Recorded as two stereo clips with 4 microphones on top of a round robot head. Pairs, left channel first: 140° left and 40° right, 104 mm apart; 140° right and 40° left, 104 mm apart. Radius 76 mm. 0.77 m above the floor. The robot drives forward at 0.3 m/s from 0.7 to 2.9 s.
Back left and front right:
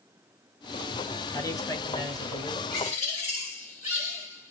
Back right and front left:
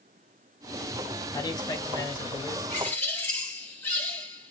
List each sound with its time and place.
1.3 s a man speaking: 175° right, 1.0 m; by 2.6 s straight behind, 1.2 m
2.7 s a bird: 145° left, 2 m